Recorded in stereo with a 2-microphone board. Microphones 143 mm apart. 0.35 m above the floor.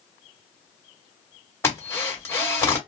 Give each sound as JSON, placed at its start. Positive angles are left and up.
{"t": 1.6, "sound": "a drill", "side_deg": 20, "distance_m": 1.8}